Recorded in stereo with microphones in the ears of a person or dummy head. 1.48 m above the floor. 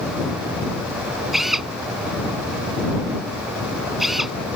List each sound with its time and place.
1.3 s a drill: centre (ahead or behind)